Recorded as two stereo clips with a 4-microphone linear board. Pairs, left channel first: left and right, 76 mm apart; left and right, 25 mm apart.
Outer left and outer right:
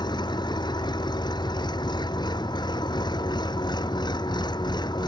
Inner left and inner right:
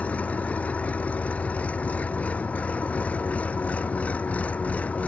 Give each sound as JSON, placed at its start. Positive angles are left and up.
{"t": 0.0, "sound": "an engine running", "side_deg": 75}